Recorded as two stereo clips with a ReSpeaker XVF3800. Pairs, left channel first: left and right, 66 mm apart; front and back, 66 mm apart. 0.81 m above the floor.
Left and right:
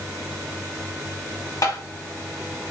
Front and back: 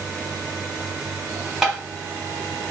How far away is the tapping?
About 0.9 m.